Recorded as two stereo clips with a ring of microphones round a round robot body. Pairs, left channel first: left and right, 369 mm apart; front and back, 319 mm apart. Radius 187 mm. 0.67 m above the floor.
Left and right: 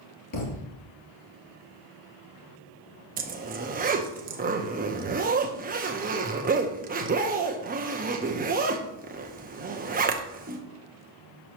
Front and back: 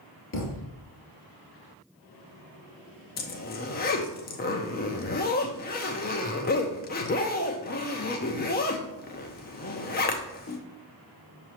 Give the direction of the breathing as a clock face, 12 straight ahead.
I don't hear breathing.